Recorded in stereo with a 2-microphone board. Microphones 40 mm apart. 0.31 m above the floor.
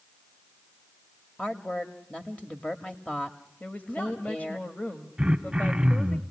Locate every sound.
1.4 s a woman speaking: 25° left (ahead or behind), 1.0 m
3.6 s a woman speaking: 40° left (ahead or behind), 1.4 m
5.2 s throat clearing: 15° right (ahead or behind), 1.3 m